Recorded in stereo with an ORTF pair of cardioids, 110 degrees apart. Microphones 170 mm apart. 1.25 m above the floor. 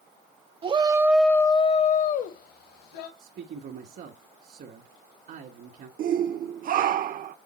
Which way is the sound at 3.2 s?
60° right.